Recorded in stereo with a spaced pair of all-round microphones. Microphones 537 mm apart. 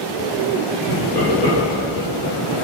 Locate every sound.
0.9 s laughter: 5° left (ahead or behind), 4.5 m; by 2.5 s 10° left (ahead or behind), 5.5 m